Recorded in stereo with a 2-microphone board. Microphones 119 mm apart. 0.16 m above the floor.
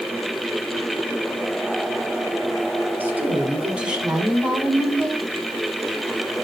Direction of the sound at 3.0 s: 15° right (ahead or behind).